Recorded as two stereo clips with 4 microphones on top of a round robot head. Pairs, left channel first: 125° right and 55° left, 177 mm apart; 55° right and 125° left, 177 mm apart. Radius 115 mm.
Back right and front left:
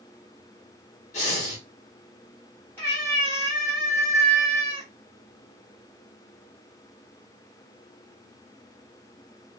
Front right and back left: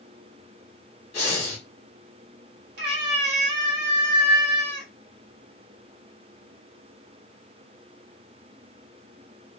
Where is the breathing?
95° right, 1.2 m.